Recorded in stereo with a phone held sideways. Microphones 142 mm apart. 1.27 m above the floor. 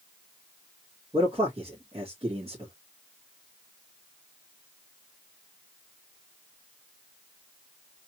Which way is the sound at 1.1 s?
40° right (ahead or behind).